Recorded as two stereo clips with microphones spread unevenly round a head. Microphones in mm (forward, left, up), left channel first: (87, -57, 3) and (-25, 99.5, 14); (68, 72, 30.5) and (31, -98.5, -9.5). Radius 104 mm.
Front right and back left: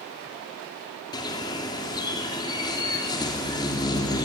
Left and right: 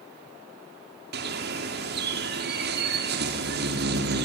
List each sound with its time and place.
1.1 s a bird: 125° right, 2.5 m